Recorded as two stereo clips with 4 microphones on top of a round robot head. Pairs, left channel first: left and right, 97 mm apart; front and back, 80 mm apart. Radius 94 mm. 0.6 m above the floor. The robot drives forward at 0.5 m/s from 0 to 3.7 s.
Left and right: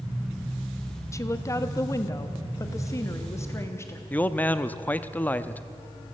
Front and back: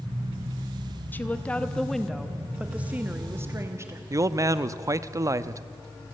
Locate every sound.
1.1 s a woman speaking: 55° left, 1.4 m; by 4.0 s 140° left, 1.5 m
4.1 s a man speaking: 155° left, 0.7 m